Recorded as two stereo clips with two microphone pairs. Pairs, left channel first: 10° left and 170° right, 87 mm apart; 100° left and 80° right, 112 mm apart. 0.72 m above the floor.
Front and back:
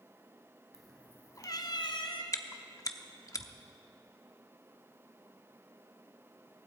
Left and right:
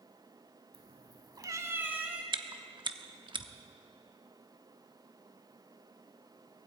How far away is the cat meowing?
About 0.9 m.